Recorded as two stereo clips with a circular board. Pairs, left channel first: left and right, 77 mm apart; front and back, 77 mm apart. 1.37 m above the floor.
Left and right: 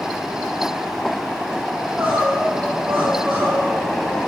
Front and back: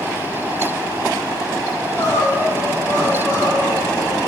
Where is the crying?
30° right, 3.5 m.